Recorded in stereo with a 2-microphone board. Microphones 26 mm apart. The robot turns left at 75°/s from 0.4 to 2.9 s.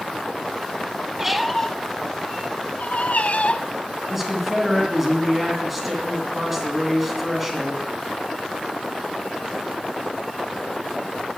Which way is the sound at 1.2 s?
15° right (ahead or behind).